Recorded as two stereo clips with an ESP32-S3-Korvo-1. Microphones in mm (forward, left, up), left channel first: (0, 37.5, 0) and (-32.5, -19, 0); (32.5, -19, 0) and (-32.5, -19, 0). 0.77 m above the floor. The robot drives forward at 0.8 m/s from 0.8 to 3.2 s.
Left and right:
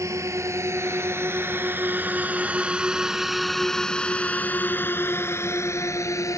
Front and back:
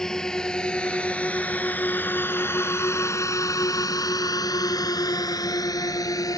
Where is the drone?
80° right; by 6.4 s 25° left.